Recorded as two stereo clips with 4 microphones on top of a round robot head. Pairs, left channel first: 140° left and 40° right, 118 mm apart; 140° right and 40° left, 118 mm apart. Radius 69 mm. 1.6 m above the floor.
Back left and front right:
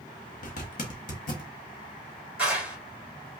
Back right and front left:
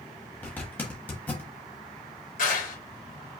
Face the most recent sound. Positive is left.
turn(degrees=-120)